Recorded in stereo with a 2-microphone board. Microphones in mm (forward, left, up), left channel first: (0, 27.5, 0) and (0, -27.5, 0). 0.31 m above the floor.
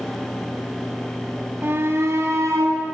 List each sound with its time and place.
1.6 s a shout: 40° right (ahead or behind), 2 m; by 2.8 s 60° right (ahead or behind), 3.5 m